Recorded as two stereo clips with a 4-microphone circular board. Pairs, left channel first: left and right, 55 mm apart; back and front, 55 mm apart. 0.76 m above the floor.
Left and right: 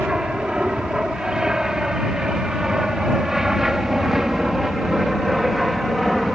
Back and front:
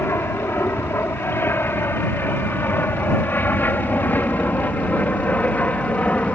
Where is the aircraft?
160° right; by 6.3 s straight behind.